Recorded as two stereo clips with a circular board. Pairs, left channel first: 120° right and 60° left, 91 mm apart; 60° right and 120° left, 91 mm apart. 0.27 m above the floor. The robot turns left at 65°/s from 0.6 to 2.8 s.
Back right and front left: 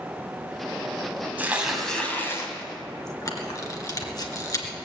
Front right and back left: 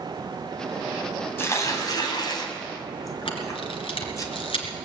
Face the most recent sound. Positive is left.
turn(degrees=-70)